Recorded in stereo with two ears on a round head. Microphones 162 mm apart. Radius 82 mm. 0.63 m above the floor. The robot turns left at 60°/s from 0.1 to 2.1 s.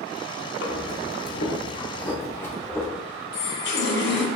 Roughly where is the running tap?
Left.